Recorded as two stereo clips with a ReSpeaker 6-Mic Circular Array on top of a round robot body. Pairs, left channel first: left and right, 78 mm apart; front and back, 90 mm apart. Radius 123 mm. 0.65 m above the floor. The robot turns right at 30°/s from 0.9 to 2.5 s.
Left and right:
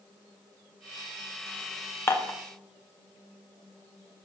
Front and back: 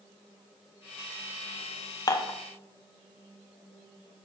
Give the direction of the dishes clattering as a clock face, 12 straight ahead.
11 o'clock.